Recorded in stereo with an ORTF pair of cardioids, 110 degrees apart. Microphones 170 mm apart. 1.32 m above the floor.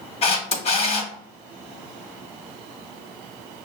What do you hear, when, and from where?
0.2 s a camera shutter: 40° left, 1.1 m